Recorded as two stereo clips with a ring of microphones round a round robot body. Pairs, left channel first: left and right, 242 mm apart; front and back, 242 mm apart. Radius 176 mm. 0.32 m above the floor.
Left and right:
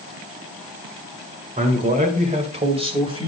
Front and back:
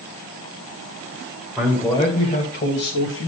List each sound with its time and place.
1.6 s a man speaking: 90° right, 1.6 m; by 3.3 s 20° right, 2.5 m